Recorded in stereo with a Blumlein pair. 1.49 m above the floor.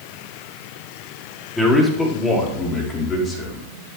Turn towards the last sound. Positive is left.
turn(degrees=25)